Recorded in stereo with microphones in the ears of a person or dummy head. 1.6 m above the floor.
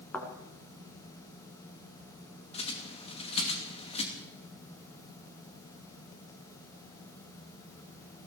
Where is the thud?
10° left (ahead or behind), 3 m.